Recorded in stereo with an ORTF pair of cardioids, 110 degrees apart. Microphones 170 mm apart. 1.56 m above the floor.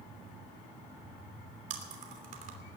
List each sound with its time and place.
1.7 s chewing: 50° right, 3 m